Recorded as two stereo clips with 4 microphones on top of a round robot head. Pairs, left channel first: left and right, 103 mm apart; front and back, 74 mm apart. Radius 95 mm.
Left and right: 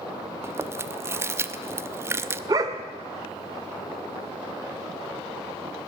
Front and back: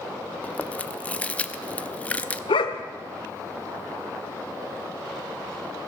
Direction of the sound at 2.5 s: 25° right.